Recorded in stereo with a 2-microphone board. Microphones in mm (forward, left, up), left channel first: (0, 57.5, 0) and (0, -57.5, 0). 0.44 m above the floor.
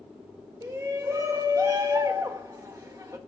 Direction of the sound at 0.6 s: 30° right (ahead or behind).